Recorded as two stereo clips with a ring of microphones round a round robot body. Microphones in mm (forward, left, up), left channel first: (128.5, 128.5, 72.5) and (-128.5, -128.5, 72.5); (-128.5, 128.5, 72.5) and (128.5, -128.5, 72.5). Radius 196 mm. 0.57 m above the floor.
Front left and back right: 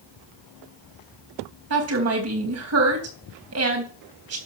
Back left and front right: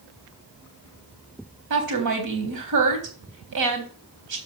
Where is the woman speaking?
85° right, 3.5 m.